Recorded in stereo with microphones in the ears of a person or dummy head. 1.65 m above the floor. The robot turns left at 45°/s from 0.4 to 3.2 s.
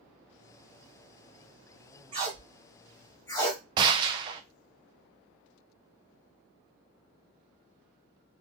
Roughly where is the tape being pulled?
Right.